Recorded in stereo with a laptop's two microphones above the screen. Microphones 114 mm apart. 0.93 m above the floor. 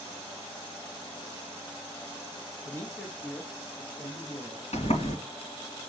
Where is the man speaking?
30° left (ahead or behind), 1.1 m; by 4.6 s 30° right (ahead or behind), 3 m.